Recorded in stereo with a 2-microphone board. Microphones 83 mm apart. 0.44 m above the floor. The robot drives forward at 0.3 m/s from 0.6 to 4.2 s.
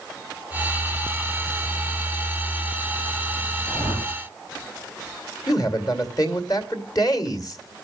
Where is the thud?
I don't hear a thud.